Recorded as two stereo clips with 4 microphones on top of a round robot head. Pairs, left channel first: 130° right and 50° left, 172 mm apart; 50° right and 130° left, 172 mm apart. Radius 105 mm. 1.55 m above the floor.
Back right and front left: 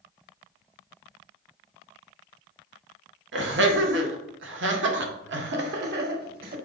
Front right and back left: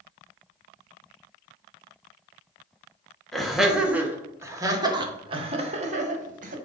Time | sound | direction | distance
3.3 | laughter | 40° left | 2 m